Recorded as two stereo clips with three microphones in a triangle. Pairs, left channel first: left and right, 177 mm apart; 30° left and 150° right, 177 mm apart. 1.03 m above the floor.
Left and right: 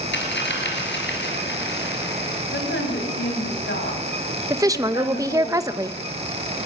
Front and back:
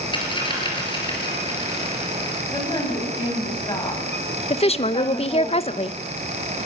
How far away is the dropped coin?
About 5.5 m.